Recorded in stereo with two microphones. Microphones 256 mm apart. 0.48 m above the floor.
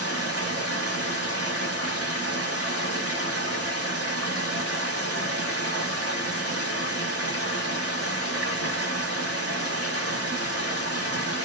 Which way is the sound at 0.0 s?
65° right (ahead or behind).